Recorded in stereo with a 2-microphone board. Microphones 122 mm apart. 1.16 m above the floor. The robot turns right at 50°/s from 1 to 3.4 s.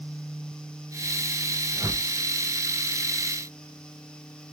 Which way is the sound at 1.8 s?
15° right (ahead or behind).